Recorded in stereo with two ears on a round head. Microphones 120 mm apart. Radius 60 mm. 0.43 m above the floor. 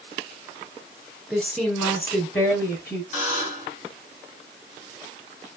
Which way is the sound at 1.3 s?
5° left (ahead or behind).